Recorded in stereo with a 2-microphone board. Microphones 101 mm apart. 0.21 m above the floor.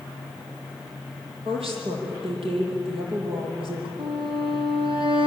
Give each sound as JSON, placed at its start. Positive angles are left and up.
{"t": 1.4, "sound": "a woman speaking", "side_deg": -65, "distance_m": 7.5}
{"t": 4.0, "sound": "a violin", "side_deg": -60, "distance_m": 3.5}